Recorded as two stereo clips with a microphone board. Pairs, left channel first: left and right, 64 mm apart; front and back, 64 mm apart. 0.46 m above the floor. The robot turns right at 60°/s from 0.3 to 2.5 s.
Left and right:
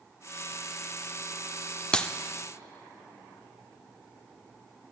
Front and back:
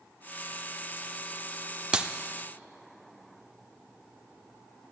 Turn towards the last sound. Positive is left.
turn(degrees=160)